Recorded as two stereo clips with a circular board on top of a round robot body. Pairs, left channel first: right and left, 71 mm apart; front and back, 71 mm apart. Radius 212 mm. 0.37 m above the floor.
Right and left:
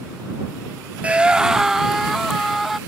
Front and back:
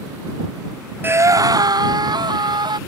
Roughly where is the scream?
Behind left.